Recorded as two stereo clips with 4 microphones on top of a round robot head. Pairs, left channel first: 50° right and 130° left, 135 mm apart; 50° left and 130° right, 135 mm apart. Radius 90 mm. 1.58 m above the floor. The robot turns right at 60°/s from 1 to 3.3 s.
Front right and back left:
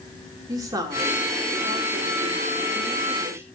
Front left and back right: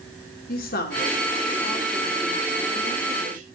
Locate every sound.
0.5 s a woman speaking: 65° left, 2.5 m; by 3.5 s 160° right, 2.5 m